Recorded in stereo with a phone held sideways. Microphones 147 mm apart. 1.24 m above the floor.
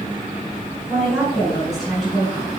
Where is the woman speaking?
Centre (ahead or behind), 4.5 m.